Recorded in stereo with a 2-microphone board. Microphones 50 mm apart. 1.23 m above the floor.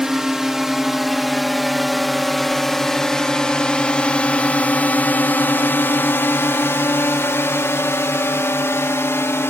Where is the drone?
10° right (ahead or behind); by 9.5 s 60° left (ahead or behind).